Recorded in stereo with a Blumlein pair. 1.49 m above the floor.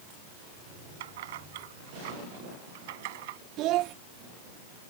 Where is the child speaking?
35° right.